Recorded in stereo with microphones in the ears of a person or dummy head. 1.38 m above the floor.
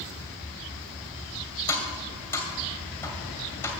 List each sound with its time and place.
1.7 s tapping: 15° left (ahead or behind), 2 m